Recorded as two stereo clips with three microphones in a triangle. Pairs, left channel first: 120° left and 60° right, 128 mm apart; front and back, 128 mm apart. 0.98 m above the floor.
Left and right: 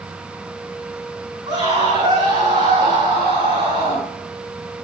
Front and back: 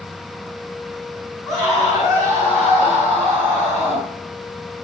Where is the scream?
90° right, 8 m; by 4.1 s 95° right, 10.5 m.